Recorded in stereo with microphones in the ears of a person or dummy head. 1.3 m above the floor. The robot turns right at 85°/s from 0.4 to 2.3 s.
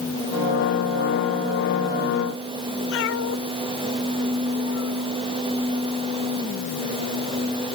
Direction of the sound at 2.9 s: 75° left (ahead or behind).